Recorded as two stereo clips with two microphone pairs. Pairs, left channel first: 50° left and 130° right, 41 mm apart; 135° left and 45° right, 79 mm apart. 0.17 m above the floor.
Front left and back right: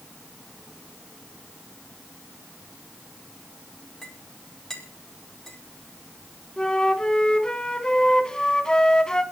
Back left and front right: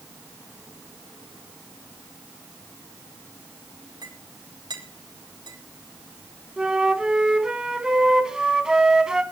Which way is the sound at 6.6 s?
20° left.